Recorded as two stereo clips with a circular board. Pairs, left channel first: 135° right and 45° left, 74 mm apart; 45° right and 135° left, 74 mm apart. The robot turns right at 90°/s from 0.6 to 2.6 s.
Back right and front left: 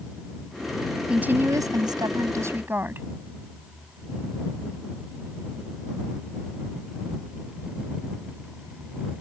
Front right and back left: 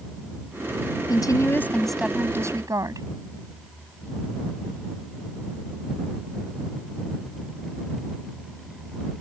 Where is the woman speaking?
30° right; by 3.1 s 105° left.